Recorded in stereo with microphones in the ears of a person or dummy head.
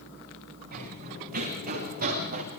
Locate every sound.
0.7 s running footsteps: 50° right (ahead or behind), 9.5 m